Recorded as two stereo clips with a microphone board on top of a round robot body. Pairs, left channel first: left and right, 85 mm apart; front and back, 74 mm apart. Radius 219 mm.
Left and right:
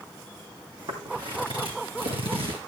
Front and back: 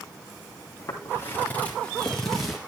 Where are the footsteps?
50° right, 2 m; by 2.6 s 95° right, 2.0 m.